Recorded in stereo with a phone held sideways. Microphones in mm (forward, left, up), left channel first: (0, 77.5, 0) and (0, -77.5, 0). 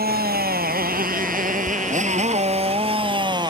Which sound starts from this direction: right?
A motorcycle, at 0.0 s.